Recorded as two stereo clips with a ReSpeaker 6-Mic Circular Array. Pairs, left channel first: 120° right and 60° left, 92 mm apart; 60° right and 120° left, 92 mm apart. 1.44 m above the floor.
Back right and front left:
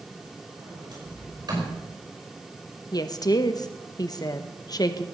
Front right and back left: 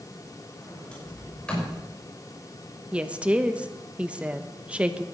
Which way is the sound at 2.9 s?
165° right.